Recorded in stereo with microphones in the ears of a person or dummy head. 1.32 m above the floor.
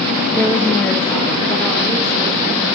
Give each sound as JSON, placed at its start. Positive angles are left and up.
{"t": 0.3, "sound": "a woman speaking", "side_deg": 15, "distance_m": 1.2}